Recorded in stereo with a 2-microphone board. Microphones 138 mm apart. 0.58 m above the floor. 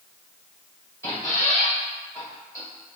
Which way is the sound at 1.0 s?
25° left (ahead or behind).